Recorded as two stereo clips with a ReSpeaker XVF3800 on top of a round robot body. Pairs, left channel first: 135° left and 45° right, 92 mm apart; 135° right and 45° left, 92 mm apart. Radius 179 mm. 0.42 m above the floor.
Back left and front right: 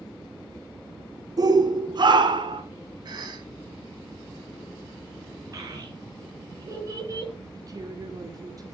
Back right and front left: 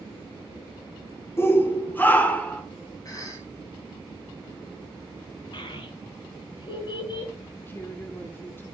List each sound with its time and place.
1.4 s a shout: 75° right, 2.0 m; by 2.6 s 60° right, 2.5 m
3.0 s a cough: 85° right, 4.5 m
5.5 s a child speaking: 95° right, 4 m
7.5 s a woman speaking: 75° right, 1.8 m